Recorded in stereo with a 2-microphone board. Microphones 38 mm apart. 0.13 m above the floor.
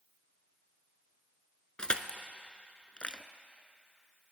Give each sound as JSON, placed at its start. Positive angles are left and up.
{"t": 1.8, "sound": "crushing", "side_deg": 30, "distance_m": 0.7}